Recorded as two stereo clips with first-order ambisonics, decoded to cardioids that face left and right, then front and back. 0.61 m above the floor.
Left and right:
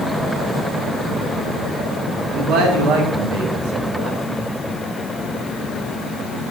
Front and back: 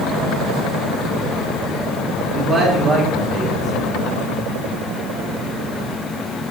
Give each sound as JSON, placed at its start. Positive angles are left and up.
{"t": 2.3, "sound": "a man speaking", "azimuth_deg": -115, "distance_m": 1.4}